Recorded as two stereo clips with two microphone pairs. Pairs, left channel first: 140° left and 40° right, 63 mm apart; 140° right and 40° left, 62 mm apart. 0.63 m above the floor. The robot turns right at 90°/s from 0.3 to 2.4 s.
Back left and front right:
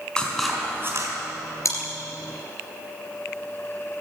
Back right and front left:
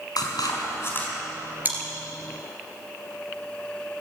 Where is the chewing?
100° left, 3 m; by 1.8 s 110° left, 3 m.